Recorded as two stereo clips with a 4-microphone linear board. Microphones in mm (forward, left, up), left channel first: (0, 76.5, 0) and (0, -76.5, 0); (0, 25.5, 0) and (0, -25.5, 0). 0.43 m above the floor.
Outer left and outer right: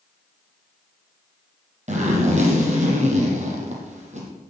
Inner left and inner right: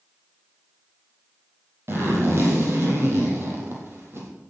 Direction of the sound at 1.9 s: 50° right (ahead or behind).